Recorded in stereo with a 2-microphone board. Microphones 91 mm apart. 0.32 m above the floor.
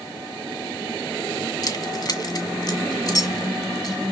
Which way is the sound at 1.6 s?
45° left (ahead or behind).